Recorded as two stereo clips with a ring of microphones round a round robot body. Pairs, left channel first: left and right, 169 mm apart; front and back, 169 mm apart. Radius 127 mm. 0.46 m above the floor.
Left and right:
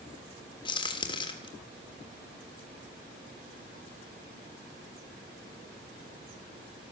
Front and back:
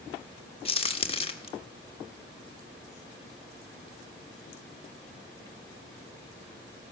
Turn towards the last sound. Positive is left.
turn(degrees=40)